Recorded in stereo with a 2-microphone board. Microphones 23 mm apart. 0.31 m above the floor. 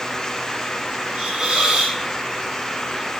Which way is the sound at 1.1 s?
45° right (ahead or behind).